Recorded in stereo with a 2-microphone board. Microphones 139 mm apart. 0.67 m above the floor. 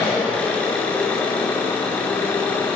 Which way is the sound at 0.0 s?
10° left (ahead or behind).